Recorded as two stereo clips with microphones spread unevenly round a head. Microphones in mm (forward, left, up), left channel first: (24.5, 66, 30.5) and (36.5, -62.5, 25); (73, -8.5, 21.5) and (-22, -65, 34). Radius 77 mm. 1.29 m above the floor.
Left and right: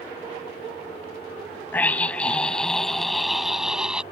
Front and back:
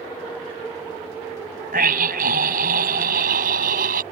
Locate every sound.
1.7 s a scream: 175° left; by 4.0 s 170° right